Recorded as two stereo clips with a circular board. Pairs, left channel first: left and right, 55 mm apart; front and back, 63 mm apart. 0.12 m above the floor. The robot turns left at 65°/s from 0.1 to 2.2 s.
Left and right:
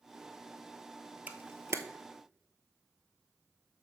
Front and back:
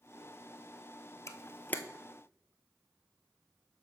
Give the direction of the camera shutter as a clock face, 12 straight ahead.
1 o'clock.